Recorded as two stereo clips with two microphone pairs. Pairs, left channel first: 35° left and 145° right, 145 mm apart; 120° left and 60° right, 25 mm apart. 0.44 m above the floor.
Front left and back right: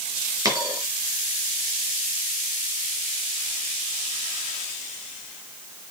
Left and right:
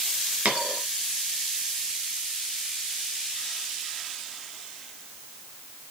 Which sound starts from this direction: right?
A dropped coin, at 0.5 s.